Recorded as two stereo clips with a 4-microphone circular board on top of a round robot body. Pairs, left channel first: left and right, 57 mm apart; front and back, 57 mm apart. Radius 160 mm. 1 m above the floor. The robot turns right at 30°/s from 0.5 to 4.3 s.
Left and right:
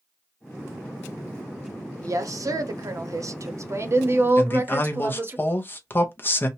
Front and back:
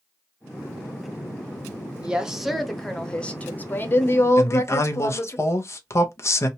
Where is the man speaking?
40° left, 0.8 m.